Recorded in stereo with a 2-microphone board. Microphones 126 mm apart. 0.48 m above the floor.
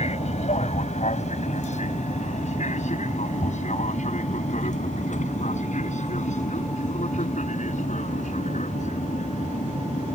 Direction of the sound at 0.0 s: 60° left (ahead or behind).